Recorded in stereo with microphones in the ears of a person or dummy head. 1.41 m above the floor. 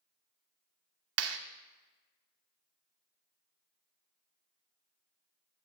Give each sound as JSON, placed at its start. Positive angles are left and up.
{"t": 1.2, "sound": "a clap", "side_deg": -80, "distance_m": 0.9}